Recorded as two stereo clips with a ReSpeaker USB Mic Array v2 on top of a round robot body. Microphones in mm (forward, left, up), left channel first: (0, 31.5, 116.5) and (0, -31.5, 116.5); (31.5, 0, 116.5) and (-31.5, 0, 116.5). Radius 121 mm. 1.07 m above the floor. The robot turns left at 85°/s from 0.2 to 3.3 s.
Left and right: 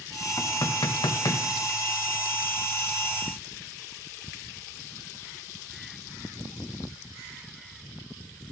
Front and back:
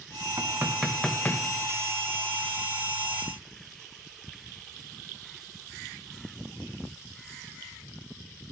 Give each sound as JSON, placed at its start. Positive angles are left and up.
{"t": 0.4, "sound": "knocking", "azimuth_deg": 140, "distance_m": 0.6}